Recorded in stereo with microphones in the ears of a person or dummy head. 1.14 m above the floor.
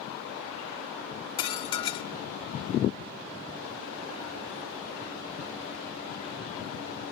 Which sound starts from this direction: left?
Dishes clattering, at 1.4 s.